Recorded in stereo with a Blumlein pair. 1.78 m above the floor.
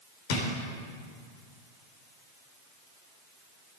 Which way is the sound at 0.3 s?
50° left.